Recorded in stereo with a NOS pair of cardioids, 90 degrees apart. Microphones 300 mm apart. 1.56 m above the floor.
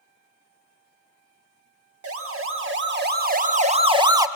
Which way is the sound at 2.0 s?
50° right.